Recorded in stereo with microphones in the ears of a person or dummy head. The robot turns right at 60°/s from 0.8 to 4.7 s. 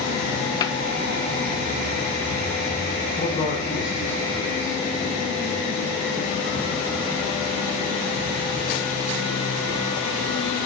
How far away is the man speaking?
About 6.5 m.